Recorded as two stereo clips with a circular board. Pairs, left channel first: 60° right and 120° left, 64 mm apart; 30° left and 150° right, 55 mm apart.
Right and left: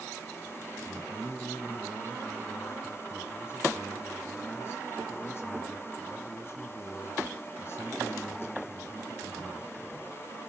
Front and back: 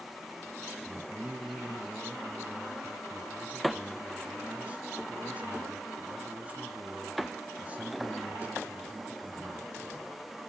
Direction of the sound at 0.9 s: 95° right.